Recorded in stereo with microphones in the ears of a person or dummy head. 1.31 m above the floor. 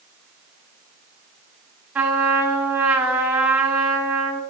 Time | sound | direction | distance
1.9 | a trumpet | 5° right (ahead or behind) | 1.5 m